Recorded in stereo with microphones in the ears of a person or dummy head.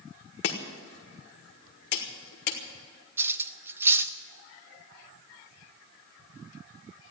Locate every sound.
0.4 s chopping: 55° left (ahead or behind), 1.6 m
3.2 s cutlery clinking: 15° right (ahead or behind), 0.9 m